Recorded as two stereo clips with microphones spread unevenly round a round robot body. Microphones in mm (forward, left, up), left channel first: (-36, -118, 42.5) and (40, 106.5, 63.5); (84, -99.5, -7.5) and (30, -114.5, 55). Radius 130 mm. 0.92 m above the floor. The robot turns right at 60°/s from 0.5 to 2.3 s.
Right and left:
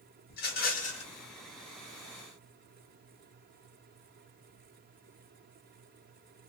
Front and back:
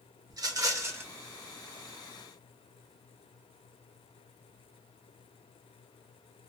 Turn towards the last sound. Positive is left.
turn(degrees=15)